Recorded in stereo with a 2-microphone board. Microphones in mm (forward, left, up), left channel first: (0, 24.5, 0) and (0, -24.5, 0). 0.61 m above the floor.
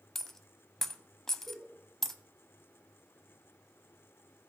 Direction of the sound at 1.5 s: 5° right (ahead or behind).